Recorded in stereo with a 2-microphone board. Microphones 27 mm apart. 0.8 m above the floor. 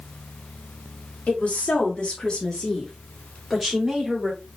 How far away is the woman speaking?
About 2.0 m.